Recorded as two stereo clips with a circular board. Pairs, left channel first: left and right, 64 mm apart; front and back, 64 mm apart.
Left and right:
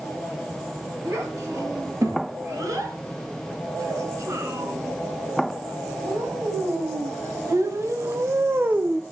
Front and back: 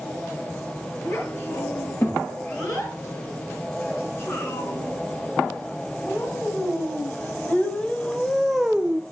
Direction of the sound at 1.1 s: 45° right.